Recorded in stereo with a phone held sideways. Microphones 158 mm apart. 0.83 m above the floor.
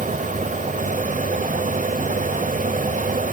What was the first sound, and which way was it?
A fan, 55° right (ahead or behind).